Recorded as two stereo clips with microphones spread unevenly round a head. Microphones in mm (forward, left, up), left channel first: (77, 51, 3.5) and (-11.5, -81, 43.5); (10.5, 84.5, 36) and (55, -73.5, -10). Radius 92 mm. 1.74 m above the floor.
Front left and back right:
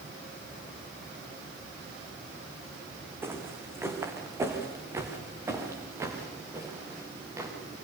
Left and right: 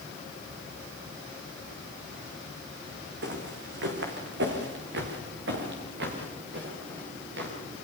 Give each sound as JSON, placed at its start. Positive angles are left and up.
{"t": 3.2, "sound": "footsteps", "azimuth_deg": -55, "distance_m": 5.0}